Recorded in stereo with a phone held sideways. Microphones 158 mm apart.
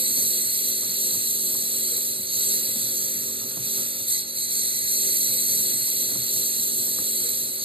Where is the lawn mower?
35° right (ahead or behind).